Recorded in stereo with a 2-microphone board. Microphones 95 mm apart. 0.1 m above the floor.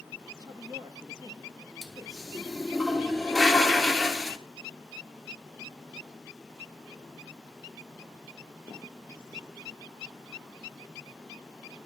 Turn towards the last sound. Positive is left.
turn(degrees=0)  # may be behind; listen again after turning